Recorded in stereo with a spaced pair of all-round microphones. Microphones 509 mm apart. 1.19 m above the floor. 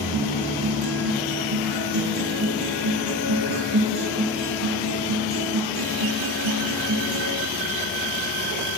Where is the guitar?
55° right (ahead or behind), 5 m.